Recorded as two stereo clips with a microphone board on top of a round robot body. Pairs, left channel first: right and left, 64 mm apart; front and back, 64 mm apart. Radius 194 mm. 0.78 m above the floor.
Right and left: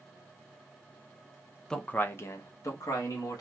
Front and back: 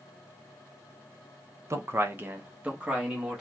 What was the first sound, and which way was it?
A man speaking, 170° right.